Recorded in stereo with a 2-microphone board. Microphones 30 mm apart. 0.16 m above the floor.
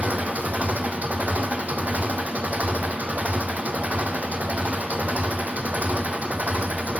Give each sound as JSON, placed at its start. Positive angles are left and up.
{"t": 0.0, "sound": "an engine running", "side_deg": -70, "distance_m": 2.0}